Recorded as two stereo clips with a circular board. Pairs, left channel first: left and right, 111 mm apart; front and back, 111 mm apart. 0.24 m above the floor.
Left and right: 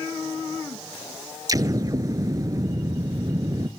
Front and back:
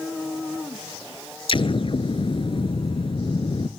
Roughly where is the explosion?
Ahead right.